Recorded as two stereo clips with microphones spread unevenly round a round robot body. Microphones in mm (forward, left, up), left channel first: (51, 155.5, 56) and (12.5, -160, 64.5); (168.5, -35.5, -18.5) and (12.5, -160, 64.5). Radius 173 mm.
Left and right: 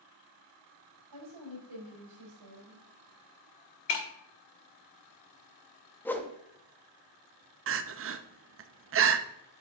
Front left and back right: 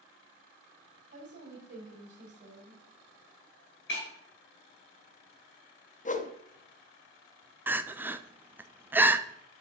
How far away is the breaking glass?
About 1.2 m.